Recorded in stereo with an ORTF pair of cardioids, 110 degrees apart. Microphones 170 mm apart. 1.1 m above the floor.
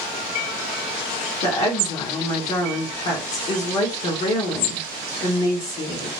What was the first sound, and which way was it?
A woman speaking, 50° left.